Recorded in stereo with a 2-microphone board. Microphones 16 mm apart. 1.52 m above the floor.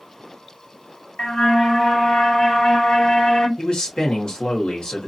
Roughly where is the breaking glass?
I don't hear breaking glass.